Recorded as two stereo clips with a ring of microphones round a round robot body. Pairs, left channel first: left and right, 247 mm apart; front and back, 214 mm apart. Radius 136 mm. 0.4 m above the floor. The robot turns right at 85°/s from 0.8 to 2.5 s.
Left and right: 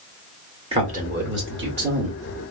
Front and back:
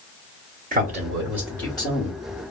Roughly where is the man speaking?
Behind right.